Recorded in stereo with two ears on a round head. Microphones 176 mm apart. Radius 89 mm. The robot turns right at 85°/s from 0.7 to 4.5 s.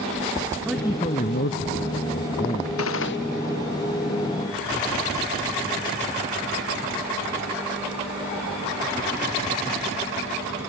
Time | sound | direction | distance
0.7 | a man speaking | 5° right | ?
2.8 | a gunshot | 85° left | ?